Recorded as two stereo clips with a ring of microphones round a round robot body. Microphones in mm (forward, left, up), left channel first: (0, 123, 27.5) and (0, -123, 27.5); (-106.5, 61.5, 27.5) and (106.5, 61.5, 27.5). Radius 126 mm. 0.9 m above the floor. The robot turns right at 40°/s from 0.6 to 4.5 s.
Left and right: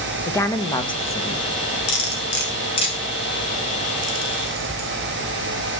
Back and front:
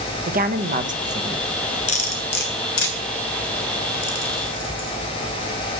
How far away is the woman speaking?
About 1.0 m.